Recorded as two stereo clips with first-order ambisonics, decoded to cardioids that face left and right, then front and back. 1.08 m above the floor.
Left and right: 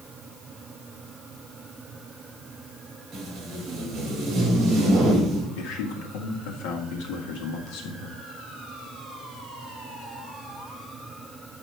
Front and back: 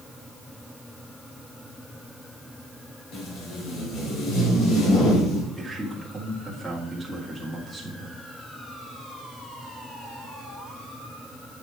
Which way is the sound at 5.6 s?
90° left.